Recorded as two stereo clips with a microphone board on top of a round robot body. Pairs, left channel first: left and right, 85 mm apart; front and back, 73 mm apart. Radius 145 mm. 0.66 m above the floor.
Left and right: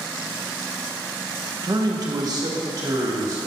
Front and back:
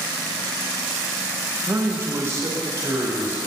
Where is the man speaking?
125° right, 1.5 m; by 3.4 s 135° right, 2.5 m.